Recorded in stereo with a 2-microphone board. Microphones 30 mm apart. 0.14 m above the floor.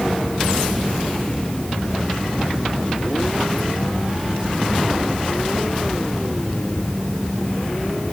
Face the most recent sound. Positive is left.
No sound to turn to.